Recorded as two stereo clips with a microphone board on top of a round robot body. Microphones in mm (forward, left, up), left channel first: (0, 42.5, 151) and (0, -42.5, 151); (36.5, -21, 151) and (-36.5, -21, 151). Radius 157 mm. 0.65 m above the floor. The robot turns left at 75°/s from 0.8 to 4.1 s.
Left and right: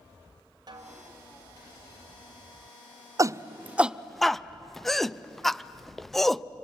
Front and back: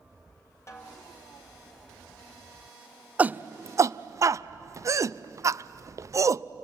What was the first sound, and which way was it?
A snare drum, 50° right.